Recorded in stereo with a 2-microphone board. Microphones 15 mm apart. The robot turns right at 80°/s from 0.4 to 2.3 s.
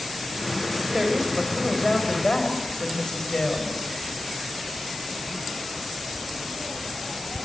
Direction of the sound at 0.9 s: 55° right.